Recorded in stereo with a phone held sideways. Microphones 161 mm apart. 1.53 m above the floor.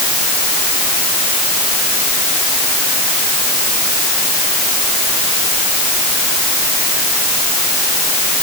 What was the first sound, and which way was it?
Only background noise.